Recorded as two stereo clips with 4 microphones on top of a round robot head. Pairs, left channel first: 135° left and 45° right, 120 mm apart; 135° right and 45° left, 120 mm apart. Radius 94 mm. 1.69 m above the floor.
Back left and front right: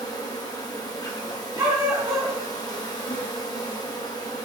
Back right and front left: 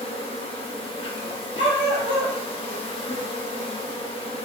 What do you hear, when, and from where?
0.0 s an insect: 170° right, 1.4 m
1.6 s a dog barking: 110° right, 3.5 m